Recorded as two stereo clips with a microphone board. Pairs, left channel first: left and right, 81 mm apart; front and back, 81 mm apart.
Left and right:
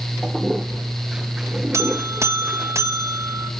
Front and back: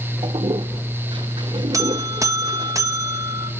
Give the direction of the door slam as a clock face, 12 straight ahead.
I don't hear a door slam.